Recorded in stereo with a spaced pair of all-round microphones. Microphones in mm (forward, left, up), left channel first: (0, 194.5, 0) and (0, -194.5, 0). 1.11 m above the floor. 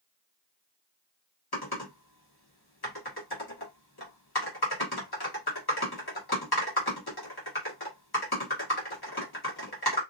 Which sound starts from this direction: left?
Typing on a keyboard, at 1.5 s.